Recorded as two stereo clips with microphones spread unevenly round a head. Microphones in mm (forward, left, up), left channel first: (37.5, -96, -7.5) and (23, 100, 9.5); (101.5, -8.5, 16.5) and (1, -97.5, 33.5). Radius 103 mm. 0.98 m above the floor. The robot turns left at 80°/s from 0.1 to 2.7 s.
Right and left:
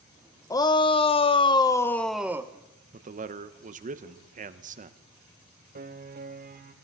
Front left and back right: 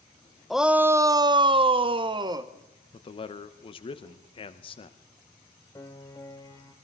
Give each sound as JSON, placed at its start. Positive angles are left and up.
{"t": 0.5, "sound": "a shout", "azimuth_deg": -35, "distance_m": 0.6}
{"t": 2.9, "sound": "a man speaking", "azimuth_deg": 55, "distance_m": 0.8}
{"t": 5.8, "sound": "a piano", "azimuth_deg": 115, "distance_m": 0.8}